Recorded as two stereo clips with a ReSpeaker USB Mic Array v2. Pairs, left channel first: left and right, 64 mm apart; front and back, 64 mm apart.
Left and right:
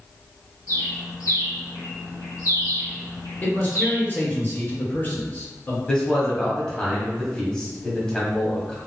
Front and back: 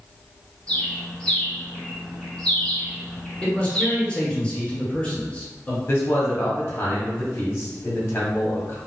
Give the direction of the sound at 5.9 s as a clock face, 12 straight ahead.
11 o'clock.